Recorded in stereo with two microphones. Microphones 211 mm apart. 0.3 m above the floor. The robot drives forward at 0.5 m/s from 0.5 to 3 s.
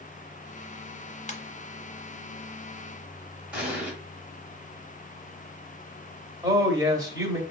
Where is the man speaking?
20° right (ahead or behind), 1.0 m.